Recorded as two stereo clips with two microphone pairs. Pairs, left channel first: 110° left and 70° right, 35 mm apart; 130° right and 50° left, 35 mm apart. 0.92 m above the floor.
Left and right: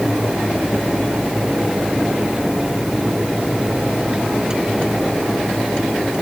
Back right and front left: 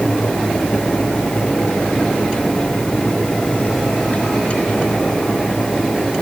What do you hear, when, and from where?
Only background noise.